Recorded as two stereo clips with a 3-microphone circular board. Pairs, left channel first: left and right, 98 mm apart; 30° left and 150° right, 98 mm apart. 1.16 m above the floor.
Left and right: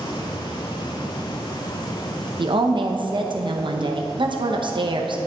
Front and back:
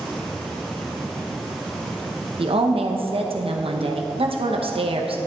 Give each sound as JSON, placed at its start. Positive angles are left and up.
{"t": 2.4, "sound": "a woman speaking", "azimuth_deg": -130, "distance_m": 0.8}